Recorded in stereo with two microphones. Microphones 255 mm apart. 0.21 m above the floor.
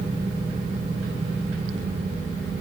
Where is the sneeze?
I don't hear a sneeze.